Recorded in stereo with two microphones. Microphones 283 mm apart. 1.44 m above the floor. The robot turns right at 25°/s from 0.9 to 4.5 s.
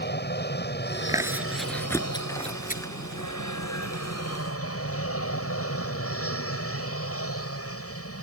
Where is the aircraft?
35° left; by 8.2 s 125° left.